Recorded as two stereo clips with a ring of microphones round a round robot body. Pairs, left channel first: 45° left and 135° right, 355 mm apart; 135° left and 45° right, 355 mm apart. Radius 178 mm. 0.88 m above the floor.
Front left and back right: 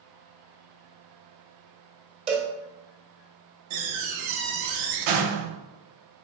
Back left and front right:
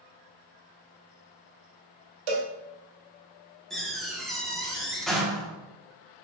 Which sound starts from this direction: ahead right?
A cowbell, at 2.3 s.